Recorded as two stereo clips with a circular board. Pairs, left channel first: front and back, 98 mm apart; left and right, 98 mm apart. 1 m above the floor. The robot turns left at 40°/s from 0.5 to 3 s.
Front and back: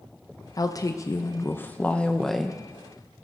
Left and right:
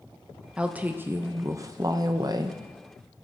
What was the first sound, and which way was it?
A woman speaking, 15° right.